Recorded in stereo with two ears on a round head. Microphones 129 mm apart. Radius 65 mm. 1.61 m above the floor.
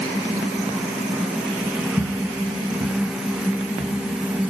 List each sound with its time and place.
2.0 s footsteps: 25° left (ahead or behind), 1.8 m; by 4.5 s 20° right (ahead or behind), 1.7 m